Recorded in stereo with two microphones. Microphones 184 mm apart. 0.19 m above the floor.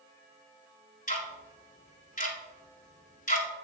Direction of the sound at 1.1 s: 45° left (ahead or behind).